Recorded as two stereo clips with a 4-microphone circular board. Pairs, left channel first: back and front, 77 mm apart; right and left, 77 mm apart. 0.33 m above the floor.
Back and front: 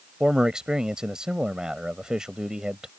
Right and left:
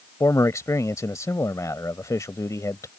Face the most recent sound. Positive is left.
turn(degrees=-75)